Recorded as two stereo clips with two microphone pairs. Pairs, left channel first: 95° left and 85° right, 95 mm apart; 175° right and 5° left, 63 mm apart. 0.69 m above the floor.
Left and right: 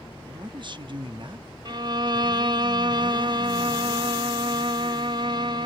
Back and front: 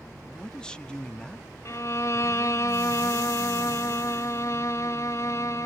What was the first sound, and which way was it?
A man speaking, 95° right.